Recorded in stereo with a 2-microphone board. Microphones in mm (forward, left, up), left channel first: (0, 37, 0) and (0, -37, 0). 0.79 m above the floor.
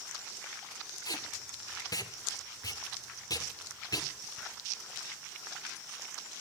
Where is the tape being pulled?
60° left (ahead or behind), 2 m.